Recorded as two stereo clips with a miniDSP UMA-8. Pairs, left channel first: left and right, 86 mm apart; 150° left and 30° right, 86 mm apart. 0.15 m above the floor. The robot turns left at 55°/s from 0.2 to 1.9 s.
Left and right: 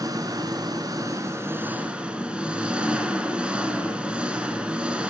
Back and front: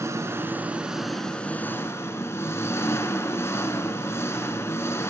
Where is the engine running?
70° right, 1.8 m; by 5.1 s 165° right, 1.8 m.